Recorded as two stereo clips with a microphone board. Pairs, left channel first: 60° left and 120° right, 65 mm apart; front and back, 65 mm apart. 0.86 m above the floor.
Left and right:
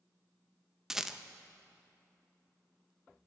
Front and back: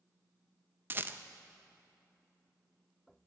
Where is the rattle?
160° left, 0.5 m.